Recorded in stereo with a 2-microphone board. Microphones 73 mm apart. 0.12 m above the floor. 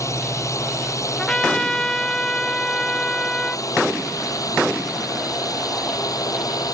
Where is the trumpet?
10° left (ahead or behind).